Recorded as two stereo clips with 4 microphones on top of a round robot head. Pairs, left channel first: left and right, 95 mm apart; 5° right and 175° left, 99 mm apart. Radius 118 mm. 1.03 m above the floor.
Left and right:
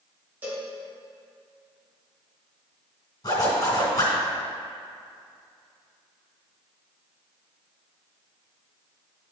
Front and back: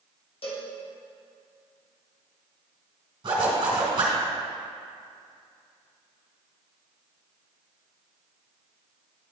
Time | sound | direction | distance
0.4 | a cowbell | 20° right | 1.7 m
3.2 | a zipper | 135° left | 2.5 m